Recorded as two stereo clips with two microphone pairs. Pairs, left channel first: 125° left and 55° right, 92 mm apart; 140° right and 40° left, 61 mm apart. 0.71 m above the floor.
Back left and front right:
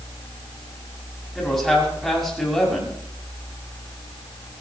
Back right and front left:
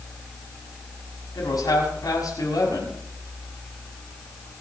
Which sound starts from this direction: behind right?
A man speaking, at 1.4 s.